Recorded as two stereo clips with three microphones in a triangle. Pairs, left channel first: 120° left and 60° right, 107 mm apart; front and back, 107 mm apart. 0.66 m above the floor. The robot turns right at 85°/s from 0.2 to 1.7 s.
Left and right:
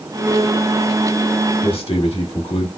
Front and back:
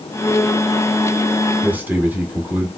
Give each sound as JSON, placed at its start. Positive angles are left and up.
{"t": 1.6, "sound": "a man speaking", "azimuth_deg": 100, "distance_m": 1.7}